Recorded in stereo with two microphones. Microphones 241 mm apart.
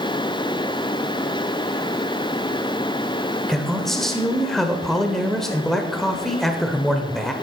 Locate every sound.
3.5 s a man speaking: centre (ahead or behind), 1.0 m